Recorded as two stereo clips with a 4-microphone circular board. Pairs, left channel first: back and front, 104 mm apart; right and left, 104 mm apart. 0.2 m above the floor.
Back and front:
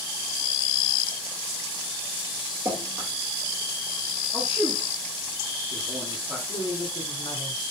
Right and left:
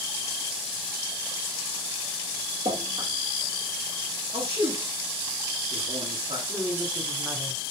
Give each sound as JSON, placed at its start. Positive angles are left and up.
{"t": 2.6, "sound": "dripping", "azimuth_deg": 70, "distance_m": 3.5}
{"t": 4.3, "sound": "a man speaking", "azimuth_deg": 75, "distance_m": 5.5}
{"t": 6.5, "sound": "a woman speaking", "azimuth_deg": 155, "distance_m": 2.0}